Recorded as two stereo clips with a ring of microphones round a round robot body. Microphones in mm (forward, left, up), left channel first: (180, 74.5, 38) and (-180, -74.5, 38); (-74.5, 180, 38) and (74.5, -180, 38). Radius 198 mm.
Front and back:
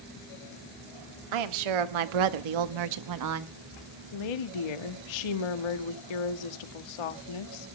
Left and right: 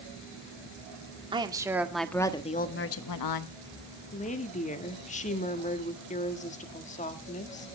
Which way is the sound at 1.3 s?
145° right.